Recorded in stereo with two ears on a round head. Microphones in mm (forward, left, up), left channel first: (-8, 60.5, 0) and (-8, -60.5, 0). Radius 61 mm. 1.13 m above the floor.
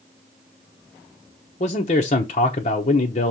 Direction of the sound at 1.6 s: 50° left (ahead or behind).